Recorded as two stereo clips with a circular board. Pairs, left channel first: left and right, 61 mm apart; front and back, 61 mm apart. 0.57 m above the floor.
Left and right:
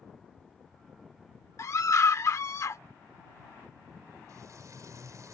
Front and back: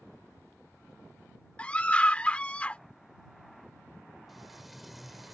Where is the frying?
90° right.